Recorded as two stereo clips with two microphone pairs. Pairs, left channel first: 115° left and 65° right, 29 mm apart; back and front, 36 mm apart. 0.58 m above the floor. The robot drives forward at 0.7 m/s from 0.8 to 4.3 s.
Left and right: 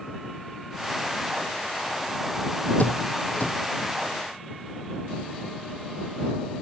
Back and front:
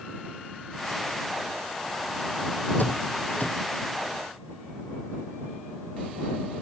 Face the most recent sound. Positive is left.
turn(degrees=145)